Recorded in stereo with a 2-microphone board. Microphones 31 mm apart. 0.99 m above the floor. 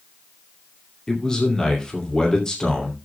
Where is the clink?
I don't hear a clink.